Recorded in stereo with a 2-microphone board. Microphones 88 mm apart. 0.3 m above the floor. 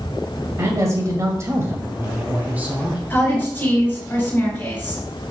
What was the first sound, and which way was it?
A man speaking, 35° right (ahead or behind).